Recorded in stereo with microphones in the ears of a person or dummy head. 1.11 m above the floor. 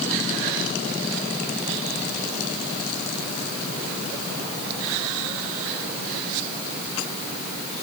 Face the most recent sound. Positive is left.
No sound to turn to.